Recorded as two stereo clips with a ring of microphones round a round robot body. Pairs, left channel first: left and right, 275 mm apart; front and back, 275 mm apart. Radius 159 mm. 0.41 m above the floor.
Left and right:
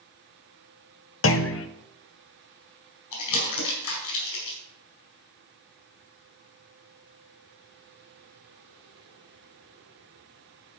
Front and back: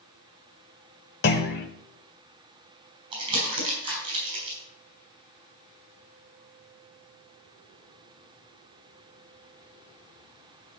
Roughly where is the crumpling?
Left.